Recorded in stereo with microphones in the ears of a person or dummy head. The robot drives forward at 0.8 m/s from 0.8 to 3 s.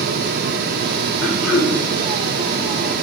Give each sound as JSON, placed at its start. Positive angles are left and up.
{"t": 1.2, "sound": "throat clearing", "side_deg": 0, "distance_m": 1.1}